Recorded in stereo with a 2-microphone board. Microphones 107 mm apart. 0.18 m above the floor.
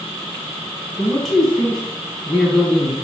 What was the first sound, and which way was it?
A man speaking, centre (ahead or behind).